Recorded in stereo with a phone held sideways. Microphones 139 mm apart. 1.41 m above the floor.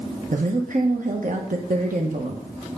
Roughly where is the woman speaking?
Right.